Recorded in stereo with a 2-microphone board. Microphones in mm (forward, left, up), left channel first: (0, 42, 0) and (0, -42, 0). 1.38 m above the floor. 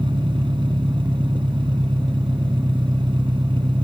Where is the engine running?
85° right.